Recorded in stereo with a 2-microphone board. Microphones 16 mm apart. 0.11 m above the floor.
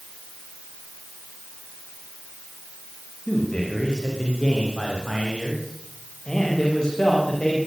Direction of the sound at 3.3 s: 45° left (ahead or behind).